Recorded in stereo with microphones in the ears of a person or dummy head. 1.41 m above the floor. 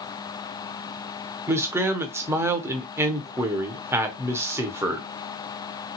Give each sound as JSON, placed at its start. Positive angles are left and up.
{"t": 1.5, "sound": "a man speaking", "side_deg": -15, "distance_m": 0.8}